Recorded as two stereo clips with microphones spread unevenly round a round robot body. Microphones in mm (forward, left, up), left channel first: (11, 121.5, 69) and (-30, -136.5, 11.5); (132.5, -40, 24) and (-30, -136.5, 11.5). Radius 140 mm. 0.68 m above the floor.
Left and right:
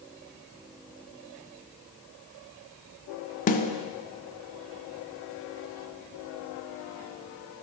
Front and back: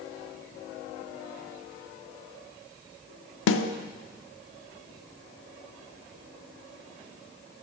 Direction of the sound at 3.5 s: 20° left.